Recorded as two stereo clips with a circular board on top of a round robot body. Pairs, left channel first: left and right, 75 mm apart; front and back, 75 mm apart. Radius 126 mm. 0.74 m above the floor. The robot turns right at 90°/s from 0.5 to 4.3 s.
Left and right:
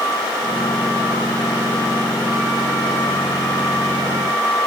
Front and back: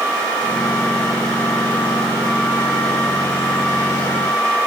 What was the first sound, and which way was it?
Only background noise.